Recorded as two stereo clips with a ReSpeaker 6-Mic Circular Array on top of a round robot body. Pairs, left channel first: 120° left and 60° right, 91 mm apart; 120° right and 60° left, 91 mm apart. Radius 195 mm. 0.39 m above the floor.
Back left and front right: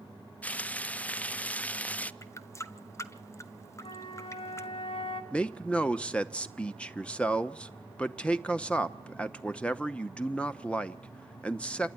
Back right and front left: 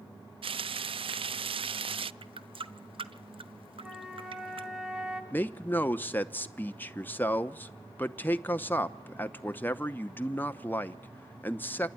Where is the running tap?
65° left, 1.3 m.